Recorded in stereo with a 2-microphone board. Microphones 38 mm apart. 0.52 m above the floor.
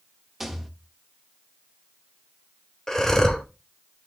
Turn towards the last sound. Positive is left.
turn(degrees=15)  # may be behind; listen again after turning